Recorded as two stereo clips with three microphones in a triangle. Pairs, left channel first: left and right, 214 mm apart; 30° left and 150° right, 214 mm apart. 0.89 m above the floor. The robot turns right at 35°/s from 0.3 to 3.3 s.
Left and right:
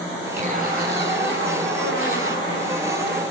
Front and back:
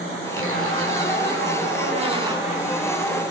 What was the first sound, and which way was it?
A zipper, 150° right.